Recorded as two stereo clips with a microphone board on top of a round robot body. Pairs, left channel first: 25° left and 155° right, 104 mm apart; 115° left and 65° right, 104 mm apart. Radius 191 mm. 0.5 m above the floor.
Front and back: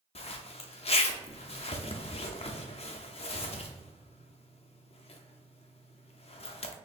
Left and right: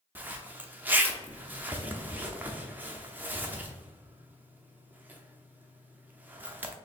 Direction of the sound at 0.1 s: 5° left.